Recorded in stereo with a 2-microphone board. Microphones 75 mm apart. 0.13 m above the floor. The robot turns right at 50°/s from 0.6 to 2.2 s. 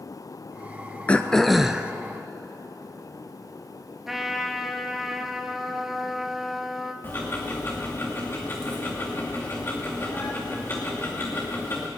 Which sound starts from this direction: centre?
A trumpet, at 4.1 s.